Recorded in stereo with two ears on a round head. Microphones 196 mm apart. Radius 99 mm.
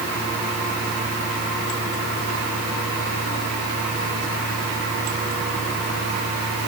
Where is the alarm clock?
No alarm clock in this recording.